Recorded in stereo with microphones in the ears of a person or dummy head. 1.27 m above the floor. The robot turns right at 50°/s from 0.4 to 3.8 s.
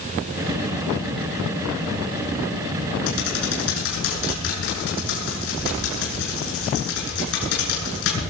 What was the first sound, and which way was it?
Typing on a keyboard, 70° left (ahead or behind).